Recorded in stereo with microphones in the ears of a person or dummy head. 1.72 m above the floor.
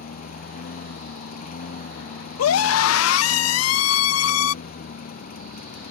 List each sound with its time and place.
0.0 s a lawn mower: 45° left (ahead or behind)
2.4 s a scream: 85° left